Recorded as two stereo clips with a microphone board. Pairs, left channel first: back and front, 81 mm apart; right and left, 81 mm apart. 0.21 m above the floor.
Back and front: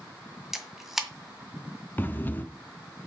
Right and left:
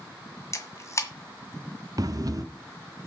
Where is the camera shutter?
85° right, 1.9 m.